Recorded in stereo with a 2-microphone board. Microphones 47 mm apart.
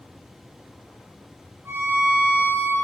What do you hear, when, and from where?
1.6 s a violin: 55° right (ahead or behind), 2 m